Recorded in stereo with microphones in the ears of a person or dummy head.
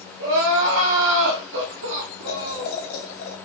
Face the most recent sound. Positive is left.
turn(degrees=60)  # may be behind; listen again after turning